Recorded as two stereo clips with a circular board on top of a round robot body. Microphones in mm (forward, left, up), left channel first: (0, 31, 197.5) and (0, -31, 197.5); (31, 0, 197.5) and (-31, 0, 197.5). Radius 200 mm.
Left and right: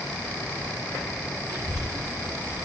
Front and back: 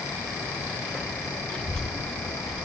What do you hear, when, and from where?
1.5 s a child speaking: 75° right, 5 m; by 2.6 s 95° right, 4.5 m